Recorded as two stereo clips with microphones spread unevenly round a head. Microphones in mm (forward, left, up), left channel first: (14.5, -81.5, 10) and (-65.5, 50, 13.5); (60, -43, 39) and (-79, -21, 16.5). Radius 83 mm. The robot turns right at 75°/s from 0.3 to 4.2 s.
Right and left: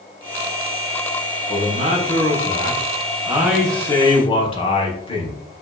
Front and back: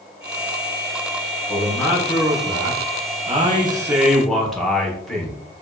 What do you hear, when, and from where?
1.5 s a man speaking: 55° left, 0.9 m; by 5.4 s 105° right, 0.9 m